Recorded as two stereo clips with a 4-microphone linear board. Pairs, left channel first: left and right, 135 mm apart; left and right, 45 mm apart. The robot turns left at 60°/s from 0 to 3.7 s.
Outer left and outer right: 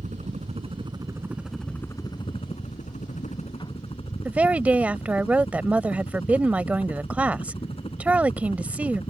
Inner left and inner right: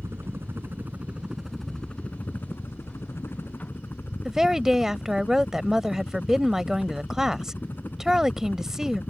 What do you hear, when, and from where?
0.0 s a helicopter: 90° right; by 9.1 s 50° left
4.2 s a woman speaking: 10° right (ahead or behind)